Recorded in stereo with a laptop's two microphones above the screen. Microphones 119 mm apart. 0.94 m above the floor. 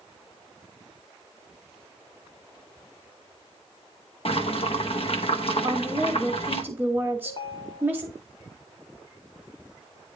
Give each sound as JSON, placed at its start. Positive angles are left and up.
{"t": 4.2, "sound": "boiling", "side_deg": 60, "distance_m": 0.9}
{"t": 5.6, "sound": "a woman speaking", "side_deg": -15, "distance_m": 1.4}
{"t": 7.2, "sound": "a ringtone", "side_deg": 50, "distance_m": 1.7}